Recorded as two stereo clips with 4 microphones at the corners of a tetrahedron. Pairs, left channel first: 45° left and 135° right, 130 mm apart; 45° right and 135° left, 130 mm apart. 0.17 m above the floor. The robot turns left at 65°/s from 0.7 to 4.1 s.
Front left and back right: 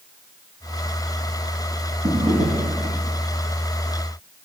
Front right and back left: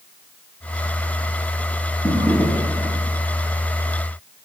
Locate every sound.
2.0 s a drawer: 105° right, 5.5 m; by 3.0 s 170° right, 5.5 m